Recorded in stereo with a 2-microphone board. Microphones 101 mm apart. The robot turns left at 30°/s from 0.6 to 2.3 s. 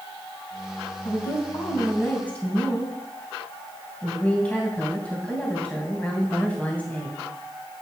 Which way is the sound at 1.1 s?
55° left.